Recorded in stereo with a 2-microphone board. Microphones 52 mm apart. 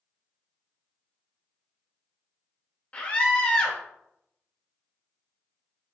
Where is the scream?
25° left (ahead or behind), 0.9 m.